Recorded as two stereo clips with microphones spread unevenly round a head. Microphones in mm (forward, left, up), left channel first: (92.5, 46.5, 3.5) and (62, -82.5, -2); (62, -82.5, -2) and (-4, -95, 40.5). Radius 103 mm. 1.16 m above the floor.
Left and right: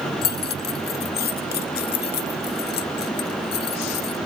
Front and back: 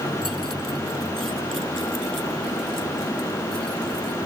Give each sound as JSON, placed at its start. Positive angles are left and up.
{"t": 0.2, "sound": "keys jangling", "azimuth_deg": 105}